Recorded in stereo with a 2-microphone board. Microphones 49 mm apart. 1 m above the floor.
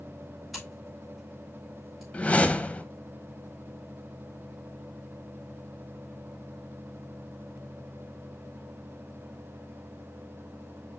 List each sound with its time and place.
0.5 s scissors: centre (ahead or behind), 4.5 m
2.1 s a whoosh: 25° left (ahead or behind), 0.8 m